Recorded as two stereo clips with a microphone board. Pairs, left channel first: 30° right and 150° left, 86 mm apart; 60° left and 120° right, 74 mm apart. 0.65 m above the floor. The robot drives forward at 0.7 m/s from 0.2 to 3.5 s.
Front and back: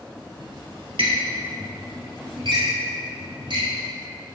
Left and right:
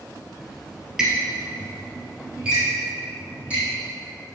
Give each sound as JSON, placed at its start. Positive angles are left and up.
{"t": 0.4, "sound": "a squeak", "azimuth_deg": 150, "distance_m": 1.4}